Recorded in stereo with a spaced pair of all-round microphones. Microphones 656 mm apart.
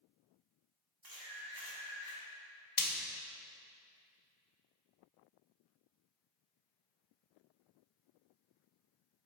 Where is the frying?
30° left (ahead or behind), 0.7 m.